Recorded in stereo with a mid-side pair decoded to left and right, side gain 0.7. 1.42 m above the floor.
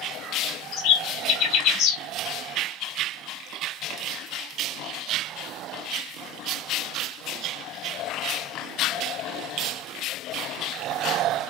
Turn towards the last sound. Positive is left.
turn(degrees=60)